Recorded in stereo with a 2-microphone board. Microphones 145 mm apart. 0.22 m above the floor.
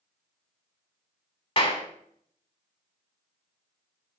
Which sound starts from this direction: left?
A clap, at 1.6 s.